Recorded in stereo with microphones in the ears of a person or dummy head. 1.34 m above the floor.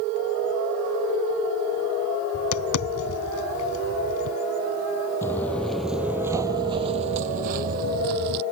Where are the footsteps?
15° left (ahead or behind); by 8.4 s 55° right (ahead or behind).